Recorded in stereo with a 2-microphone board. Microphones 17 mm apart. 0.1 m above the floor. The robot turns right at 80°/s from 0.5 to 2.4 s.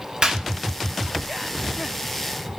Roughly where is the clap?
Right.